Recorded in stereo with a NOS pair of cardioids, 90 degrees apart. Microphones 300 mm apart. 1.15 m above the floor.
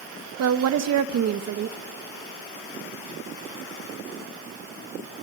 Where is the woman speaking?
60° right, 1.5 m.